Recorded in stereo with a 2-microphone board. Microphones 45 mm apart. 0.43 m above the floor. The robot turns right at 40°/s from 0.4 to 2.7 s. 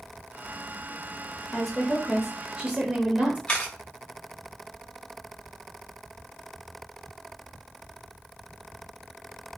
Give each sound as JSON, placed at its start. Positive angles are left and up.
{"t": 1.5, "sound": "a woman speaking", "azimuth_deg": 165, "distance_m": 1.2}
{"t": 3.5, "sound": "a camera shutter", "side_deg": 20, "distance_m": 1.4}